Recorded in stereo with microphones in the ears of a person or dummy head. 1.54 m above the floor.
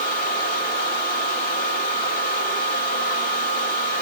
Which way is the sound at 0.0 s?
55° left (ahead or behind).